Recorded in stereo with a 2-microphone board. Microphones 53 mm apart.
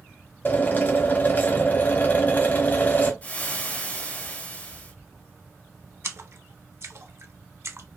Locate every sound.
0.5 s a drill: 35° left (ahead or behind), 0.9 m
3.2 s frying: 30° left (ahead or behind), 0.8 m
6.0 s a splash: 55° right (ahead or behind), 0.6 m